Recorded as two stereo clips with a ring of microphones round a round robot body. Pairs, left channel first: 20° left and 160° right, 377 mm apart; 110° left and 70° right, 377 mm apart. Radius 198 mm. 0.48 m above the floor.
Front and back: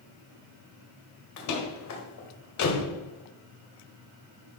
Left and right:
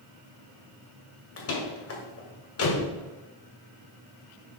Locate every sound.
1.4 s a door slam: 60° left, 1.9 m